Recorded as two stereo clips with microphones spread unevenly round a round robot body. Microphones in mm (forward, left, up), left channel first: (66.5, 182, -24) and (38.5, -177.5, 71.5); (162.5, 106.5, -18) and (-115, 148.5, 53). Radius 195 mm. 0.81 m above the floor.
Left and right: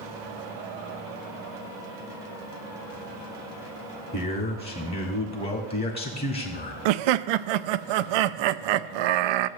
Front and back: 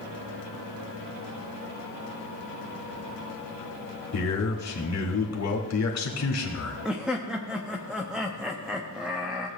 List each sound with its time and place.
4.1 s a man speaking: 25° left, 1.6 m
6.8 s laughter: 90° right, 0.5 m